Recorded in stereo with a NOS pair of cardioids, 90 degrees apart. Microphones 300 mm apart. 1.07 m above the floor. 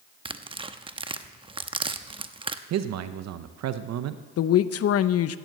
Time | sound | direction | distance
0.2 | tearing paper | 20° right | 0.9 m
2.7 | a man speaking | 65° right | 0.8 m
4.4 | a woman speaking | 55° left | 0.7 m